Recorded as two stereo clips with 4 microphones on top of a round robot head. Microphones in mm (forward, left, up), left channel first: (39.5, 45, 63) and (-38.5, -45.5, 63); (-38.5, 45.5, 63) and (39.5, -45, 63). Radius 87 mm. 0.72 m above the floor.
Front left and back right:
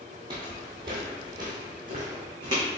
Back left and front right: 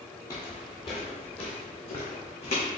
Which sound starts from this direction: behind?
Footsteps, at 0.3 s.